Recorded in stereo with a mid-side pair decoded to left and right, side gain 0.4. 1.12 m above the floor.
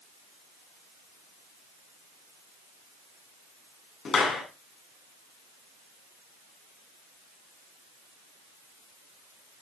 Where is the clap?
60° left, 8 m.